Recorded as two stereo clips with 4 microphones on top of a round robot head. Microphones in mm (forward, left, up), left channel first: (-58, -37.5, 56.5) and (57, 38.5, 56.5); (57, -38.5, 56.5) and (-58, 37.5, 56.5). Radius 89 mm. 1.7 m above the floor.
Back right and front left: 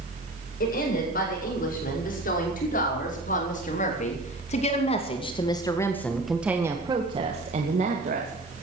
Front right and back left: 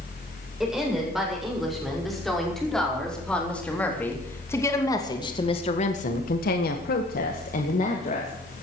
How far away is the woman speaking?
About 8 m.